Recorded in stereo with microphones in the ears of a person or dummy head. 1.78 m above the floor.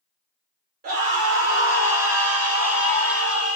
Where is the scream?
55° right (ahead or behind), 0.7 m; by 3.6 s 5° right (ahead or behind), 1.7 m.